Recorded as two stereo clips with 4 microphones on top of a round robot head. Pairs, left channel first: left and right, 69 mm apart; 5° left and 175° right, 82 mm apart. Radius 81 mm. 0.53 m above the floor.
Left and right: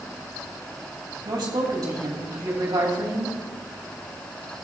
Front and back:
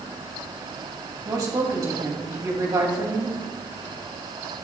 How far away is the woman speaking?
About 3 m.